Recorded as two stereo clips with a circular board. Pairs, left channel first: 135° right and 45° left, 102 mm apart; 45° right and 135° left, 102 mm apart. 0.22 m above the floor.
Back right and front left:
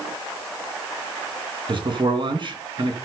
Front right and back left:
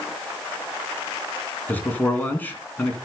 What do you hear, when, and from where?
1.7 s a man speaking: 25° left, 3 m